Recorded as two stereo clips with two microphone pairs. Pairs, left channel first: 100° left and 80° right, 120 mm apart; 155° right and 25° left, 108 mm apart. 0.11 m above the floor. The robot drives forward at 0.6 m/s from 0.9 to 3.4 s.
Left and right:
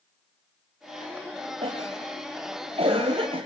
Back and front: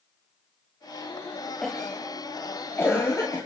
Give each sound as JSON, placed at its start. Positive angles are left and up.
{"t": 1.6, "sound": "a cough", "azimuth_deg": -70, "distance_m": 2.5}